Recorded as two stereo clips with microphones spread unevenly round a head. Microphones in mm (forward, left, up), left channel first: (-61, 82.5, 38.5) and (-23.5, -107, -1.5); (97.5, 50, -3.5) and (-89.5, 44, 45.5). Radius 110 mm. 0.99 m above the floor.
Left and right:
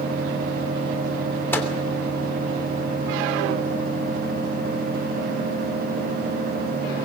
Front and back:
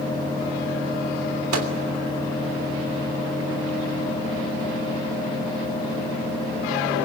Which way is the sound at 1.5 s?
Straight behind.